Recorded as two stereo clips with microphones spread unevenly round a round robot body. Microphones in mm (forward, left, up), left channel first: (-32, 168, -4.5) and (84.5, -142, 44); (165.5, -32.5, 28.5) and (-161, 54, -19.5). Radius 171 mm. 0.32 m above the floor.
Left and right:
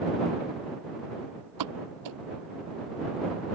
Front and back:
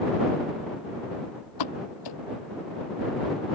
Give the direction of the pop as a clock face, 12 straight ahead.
1 o'clock.